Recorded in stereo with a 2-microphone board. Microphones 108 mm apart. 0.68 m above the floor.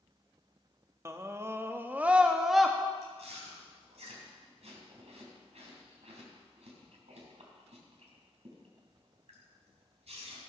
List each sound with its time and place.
1.1 s a scream: 25° right (ahead or behind), 0.9 m; by 2.8 s centre (ahead or behind), 0.8 m
3.0 s chewing: 80° right, 3 m